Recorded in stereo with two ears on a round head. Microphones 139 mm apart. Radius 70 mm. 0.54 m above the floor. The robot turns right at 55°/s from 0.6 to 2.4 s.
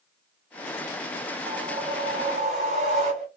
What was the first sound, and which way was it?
A whoosh, 150° right.